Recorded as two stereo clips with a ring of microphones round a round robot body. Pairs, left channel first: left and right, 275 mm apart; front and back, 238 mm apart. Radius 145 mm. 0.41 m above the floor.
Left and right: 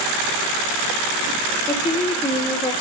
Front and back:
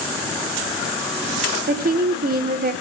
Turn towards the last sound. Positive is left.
turn(degrees=155)